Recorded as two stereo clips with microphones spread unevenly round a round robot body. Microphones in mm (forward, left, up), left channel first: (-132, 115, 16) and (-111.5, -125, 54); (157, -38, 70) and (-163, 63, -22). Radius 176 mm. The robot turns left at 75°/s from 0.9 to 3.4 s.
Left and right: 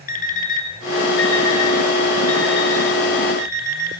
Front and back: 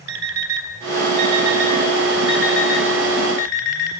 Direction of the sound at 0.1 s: 150° left.